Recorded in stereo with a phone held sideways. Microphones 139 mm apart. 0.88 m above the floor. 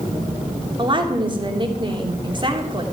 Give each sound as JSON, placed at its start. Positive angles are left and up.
{"t": 0.8, "sound": "a woman speaking", "side_deg": -35, "distance_m": 2.5}